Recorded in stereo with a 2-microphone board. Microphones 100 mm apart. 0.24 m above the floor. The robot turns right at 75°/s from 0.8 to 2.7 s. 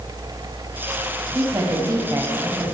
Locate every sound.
1.3 s a woman speaking: 20° right (ahead or behind), 1.1 m